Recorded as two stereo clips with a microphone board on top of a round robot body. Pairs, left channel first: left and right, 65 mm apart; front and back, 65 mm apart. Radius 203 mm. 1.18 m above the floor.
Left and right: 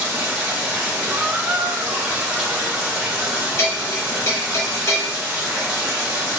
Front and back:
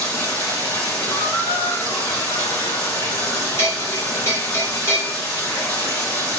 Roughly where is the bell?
Ahead left.